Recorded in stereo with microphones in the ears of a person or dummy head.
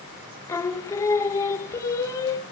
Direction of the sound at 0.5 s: 15° left (ahead or behind).